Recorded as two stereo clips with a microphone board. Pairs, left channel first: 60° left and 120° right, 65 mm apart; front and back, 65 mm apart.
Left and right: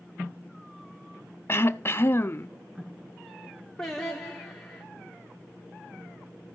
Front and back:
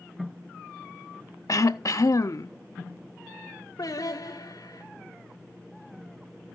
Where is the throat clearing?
15° left, 0.6 m.